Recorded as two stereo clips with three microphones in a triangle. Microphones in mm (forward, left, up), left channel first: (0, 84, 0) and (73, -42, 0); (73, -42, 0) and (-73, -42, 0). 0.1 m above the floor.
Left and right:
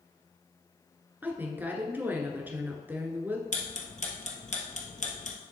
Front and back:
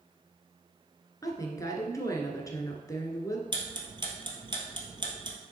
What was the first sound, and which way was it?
A woman speaking, 5° right.